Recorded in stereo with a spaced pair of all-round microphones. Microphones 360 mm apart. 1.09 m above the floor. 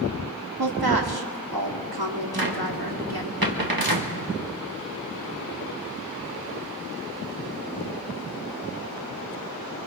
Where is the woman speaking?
85° right, 2 m.